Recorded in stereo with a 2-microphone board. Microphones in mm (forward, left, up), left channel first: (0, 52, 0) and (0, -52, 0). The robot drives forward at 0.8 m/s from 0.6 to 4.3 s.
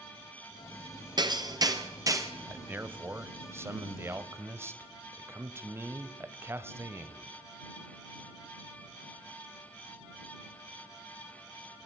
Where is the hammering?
45° right (ahead or behind), 2 m; by 2.3 s 30° right (ahead or behind), 3 m.